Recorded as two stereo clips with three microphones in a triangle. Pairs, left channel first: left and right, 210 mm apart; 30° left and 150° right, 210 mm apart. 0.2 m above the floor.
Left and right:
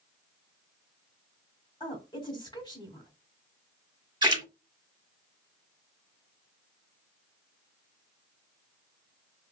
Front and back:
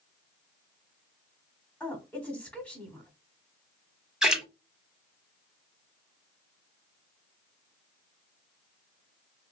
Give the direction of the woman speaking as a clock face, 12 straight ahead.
9 o'clock.